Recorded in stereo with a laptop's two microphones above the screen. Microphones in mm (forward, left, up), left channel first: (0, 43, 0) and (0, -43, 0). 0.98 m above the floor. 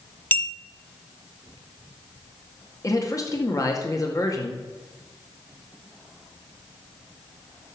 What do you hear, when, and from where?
0.3 s a clink: 20° left (ahead or behind), 0.7 m
2.8 s a man speaking: 40° left (ahead or behind), 1.9 m